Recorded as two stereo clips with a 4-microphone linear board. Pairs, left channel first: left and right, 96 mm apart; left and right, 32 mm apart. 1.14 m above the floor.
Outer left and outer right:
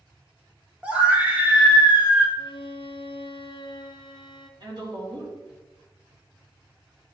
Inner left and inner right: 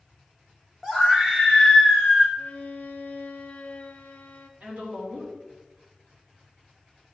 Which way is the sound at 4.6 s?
50° right (ahead or behind).